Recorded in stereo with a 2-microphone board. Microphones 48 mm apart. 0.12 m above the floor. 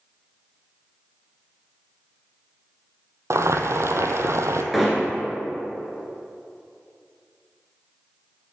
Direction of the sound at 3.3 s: 75° right (ahead or behind).